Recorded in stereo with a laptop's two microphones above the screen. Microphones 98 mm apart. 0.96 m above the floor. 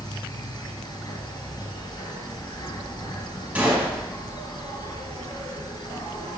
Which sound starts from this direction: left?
An insect, at 0.0 s.